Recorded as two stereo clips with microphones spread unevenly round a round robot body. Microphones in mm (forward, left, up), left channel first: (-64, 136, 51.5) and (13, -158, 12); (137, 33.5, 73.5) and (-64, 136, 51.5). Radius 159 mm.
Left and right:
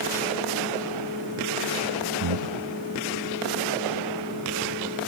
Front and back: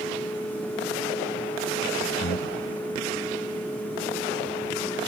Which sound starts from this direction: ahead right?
Breathing, at 2.2 s.